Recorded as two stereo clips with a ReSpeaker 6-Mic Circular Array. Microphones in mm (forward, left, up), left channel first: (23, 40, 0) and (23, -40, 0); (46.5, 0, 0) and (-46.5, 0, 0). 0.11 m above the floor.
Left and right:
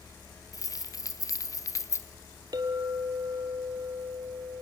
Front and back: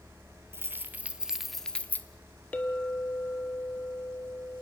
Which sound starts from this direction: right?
A clink, at 2.5 s.